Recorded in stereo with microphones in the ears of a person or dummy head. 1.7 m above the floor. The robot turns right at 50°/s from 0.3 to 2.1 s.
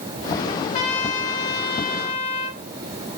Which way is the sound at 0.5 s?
40° left.